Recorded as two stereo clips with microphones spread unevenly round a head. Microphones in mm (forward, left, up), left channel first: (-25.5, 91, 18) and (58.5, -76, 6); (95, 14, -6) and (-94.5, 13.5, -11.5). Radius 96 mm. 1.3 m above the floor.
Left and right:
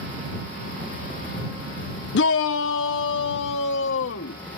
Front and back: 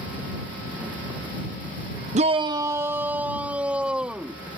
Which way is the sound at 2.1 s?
135° left.